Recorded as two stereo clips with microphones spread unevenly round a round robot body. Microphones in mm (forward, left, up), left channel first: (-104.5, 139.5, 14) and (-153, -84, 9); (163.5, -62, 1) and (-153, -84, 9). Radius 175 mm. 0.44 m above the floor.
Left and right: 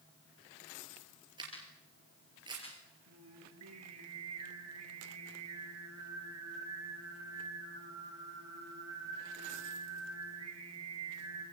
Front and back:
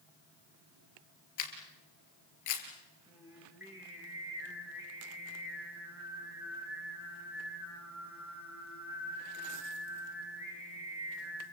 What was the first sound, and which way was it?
A camera shutter, 25° right.